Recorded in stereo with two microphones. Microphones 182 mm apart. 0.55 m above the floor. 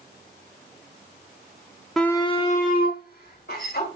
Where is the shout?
Centre (ahead or behind), 0.7 m; by 3.9 s 70° left (ahead or behind), 2 m.